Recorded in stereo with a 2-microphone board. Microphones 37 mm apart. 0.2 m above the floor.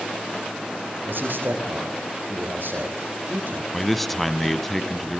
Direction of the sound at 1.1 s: 70° right (ahead or behind).